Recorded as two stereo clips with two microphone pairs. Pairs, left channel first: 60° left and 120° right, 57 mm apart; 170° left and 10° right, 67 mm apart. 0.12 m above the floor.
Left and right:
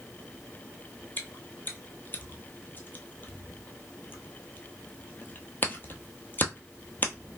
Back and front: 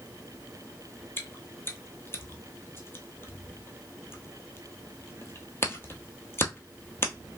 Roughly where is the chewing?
Behind left.